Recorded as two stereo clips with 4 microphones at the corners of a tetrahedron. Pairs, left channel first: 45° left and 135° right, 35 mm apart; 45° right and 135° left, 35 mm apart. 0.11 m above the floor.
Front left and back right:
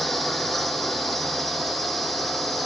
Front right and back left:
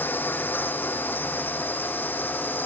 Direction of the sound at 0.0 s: 40° right.